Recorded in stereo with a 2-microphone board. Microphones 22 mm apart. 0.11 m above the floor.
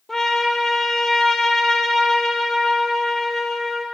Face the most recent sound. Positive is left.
turn(degrees=20)  # may be behind; listen again after turning